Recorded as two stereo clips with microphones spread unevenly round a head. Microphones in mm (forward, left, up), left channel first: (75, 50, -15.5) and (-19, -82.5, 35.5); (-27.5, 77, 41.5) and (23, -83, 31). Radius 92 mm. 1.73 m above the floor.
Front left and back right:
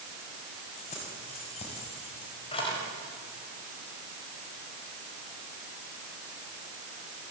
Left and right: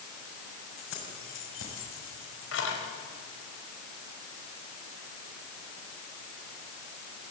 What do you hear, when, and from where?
0.8 s keys jangling: 110° left, 7 m; by 2.8 s 125° left, 5 m